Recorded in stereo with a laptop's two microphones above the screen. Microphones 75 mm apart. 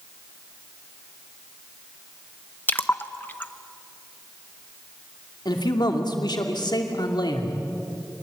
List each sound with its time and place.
2.7 s a splash: 25° left (ahead or behind), 0.8 m
5.5 s a man speaking: 75° left (ahead or behind), 2.5 m